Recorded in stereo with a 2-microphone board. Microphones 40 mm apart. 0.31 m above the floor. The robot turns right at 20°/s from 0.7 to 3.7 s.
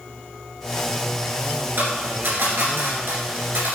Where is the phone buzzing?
I don't hear a phone buzzing.